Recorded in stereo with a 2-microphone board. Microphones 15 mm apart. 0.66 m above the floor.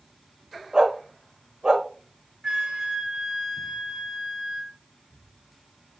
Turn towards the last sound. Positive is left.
turn(degrees=-60)  # may be behind; listen again after turning